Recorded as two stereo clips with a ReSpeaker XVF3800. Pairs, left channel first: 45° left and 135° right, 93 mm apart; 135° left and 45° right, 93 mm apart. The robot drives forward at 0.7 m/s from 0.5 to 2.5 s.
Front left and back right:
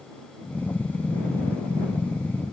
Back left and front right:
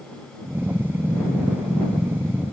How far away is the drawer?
I don't hear a drawer.